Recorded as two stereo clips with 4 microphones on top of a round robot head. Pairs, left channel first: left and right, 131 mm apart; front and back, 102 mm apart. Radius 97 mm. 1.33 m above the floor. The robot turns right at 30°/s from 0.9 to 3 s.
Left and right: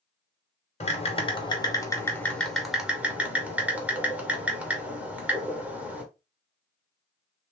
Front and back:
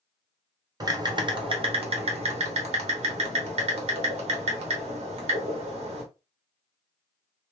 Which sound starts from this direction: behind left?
Typing on a keyboard, at 0.8 s.